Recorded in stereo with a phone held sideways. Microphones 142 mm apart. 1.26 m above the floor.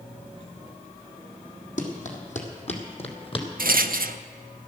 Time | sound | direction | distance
1.8 | running footsteps | 65° left (ahead or behind) | 2.5 m
3.6 | a rattle | 85° right | 0.5 m